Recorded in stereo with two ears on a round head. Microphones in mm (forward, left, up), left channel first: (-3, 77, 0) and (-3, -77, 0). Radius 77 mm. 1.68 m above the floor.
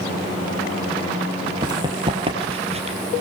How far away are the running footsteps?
About 2.5 m.